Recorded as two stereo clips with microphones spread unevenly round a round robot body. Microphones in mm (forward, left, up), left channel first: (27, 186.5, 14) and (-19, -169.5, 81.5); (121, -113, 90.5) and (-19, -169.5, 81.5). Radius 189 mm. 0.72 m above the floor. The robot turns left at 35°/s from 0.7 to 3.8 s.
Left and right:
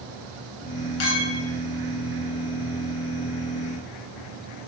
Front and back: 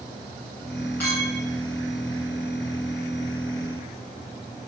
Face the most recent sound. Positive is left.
turn(degrees=5)